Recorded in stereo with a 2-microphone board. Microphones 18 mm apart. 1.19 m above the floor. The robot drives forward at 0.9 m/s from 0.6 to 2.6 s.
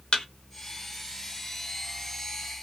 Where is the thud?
45° left (ahead or behind), 0.8 m.